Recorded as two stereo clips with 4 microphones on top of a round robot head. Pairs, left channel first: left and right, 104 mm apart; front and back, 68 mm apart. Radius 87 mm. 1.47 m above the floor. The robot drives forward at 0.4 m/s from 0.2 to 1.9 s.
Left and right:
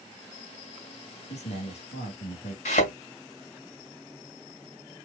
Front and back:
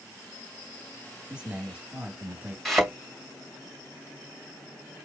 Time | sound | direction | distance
1.3 | a man speaking | 105° left | 3 m
2.6 | a thud | 90° left | 2.5 m